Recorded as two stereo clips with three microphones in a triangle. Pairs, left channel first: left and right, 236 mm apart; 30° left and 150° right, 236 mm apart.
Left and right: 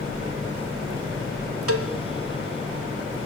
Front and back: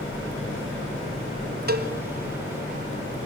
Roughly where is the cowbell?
Right.